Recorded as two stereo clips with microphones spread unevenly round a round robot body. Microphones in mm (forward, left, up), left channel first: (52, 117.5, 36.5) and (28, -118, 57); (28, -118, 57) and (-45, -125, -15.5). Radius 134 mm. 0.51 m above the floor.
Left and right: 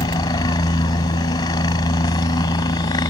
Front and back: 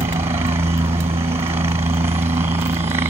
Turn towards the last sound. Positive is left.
turn(degrees=160)